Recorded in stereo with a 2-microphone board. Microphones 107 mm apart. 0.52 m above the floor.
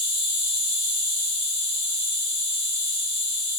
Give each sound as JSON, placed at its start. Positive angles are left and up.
{"t": 0.0, "sound": "an insect", "side_deg": 60, "distance_m": 1.6}